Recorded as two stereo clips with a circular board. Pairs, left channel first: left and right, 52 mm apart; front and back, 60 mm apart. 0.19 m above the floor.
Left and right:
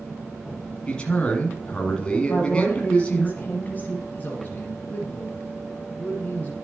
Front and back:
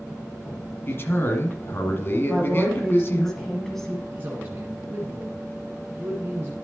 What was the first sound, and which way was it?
A man speaking, 25° left.